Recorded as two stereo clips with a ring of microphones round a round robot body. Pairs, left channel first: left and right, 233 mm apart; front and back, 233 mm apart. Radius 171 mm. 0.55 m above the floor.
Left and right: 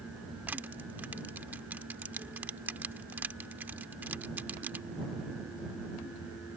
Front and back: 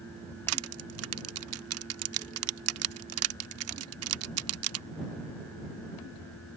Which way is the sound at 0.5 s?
175° right.